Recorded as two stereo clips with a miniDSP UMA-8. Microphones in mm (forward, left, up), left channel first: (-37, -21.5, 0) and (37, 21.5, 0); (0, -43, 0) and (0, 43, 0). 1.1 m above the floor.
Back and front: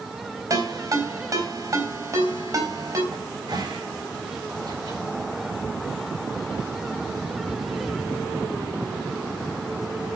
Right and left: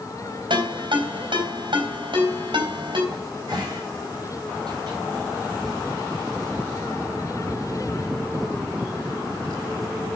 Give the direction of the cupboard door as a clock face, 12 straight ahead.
10 o'clock.